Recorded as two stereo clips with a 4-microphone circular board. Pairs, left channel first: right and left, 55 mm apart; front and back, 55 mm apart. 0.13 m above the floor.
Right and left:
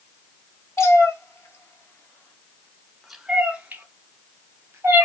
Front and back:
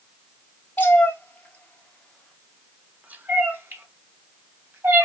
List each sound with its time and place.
0.8 s a cat meowing: 55° right, 2 m; by 5.0 s 140° left, 2.5 m